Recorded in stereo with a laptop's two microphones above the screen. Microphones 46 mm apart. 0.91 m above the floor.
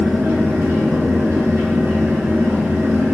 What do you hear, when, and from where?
0.0 s a fan: 80° right, 1.3 m